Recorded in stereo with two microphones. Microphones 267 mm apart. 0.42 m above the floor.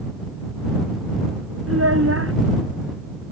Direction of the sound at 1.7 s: 55° right (ahead or behind).